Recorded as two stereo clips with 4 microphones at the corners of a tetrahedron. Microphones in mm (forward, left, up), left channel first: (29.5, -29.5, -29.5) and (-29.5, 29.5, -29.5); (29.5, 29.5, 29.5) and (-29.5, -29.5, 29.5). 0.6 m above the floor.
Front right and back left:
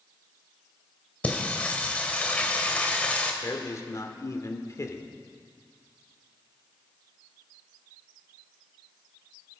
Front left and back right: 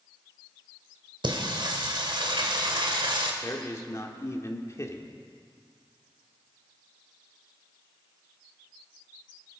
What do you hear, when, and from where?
1.2 s singing: 120° right, 1.8 m
3.4 s a man speaking: straight ahead, 1.6 m